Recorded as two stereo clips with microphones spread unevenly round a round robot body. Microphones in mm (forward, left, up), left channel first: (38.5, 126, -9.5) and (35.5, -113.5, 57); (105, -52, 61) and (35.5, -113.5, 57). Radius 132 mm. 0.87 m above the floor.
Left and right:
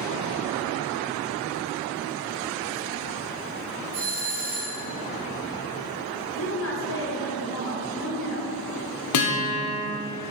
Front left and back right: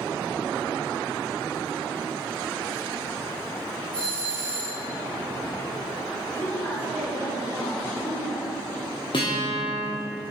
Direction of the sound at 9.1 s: 100° left.